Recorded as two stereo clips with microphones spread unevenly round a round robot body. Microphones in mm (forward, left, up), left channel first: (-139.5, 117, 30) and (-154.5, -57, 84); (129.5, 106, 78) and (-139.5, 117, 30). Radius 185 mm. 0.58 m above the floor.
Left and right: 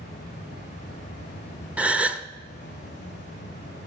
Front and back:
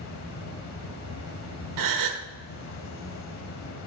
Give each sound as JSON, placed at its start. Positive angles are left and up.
{"t": 0.0, "sound": "an insect", "azimuth_deg": 25, "distance_m": 1.1}
{"t": 1.8, "sound": "a gasp", "azimuth_deg": 180, "distance_m": 0.8}